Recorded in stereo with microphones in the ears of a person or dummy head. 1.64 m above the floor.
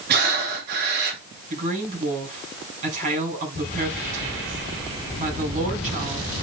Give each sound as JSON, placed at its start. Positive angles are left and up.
{"t": 0.1, "sound": "breathing", "side_deg": -55, "distance_m": 3.0}
{"t": 1.5, "sound": "a woman speaking", "side_deg": -40, "distance_m": 8.5}